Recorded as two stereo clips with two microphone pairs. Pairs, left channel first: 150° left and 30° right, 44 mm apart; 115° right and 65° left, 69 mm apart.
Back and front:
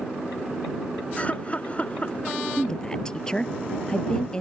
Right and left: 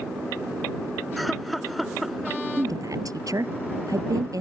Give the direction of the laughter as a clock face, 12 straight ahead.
7 o'clock.